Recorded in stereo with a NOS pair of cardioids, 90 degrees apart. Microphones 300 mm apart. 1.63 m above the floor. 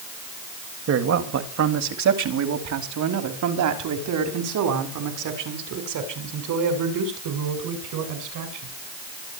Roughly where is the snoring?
No snoring in this recording.